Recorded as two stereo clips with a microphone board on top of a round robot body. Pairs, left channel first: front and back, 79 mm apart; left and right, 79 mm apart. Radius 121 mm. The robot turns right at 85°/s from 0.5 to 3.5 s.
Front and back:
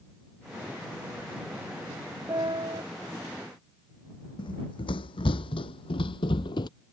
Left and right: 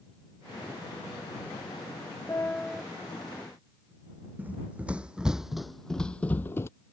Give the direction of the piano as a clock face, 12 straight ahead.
7 o'clock.